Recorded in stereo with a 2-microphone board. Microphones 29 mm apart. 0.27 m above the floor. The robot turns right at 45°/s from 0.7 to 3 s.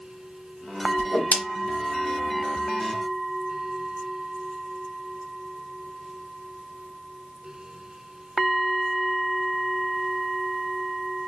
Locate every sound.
1.0 s a whoosh: 50° left (ahead or behind), 0.9 m